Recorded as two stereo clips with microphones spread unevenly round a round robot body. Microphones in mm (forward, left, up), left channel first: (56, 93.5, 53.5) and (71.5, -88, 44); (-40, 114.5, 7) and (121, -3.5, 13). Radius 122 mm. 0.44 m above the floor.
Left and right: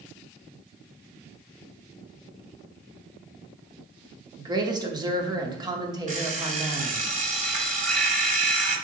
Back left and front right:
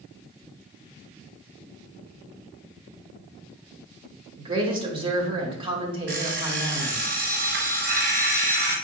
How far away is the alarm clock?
About 1.5 m.